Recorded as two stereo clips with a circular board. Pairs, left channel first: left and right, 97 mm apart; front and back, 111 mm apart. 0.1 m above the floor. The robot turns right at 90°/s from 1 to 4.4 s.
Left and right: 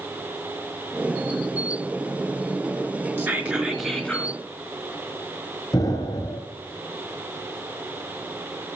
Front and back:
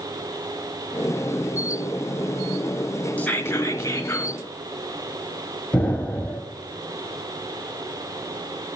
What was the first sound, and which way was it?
Whispering, 60° right.